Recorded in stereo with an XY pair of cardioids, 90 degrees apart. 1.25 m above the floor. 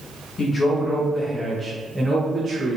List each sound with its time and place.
0.4 s a man speaking: 50° left, 1.3 m; by 2.8 s 30° right, 1.2 m